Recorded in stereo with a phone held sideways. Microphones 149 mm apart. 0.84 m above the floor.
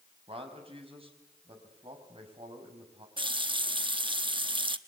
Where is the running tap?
35° right (ahead or behind), 0.9 m.